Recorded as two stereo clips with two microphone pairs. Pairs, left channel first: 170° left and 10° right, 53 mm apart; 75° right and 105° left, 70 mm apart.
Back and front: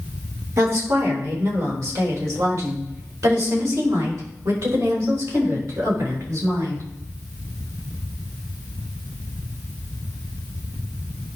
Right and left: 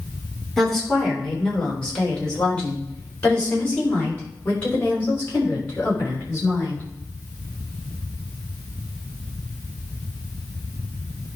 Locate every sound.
0.6 s a woman speaking: 10° left, 4 m; by 6.8 s 20° right, 6.5 m